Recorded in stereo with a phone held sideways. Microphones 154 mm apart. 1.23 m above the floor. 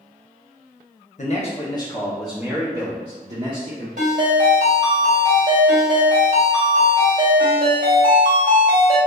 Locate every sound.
1.2 s a man speaking: 50° left (ahead or behind), 0.7 m; by 3.9 s 55° right (ahead or behind), 1.2 m
4.0 s a ringtone: 65° right (ahead or behind), 1.8 m